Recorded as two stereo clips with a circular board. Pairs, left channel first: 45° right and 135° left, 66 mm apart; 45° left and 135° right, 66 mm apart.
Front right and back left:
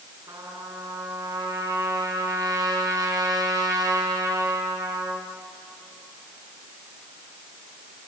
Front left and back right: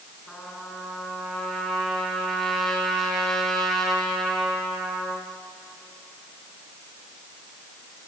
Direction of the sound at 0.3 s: 130° left.